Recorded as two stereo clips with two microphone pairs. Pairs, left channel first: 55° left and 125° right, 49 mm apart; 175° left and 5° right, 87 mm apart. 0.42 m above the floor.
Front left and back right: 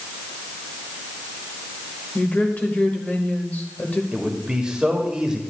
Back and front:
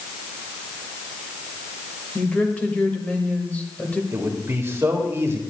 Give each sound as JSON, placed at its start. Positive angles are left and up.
{"t": 2.1, "sound": "a woman speaking", "azimuth_deg": 105, "distance_m": 1.5}
{"t": 4.1, "sound": "a man speaking", "azimuth_deg": -55, "distance_m": 1.5}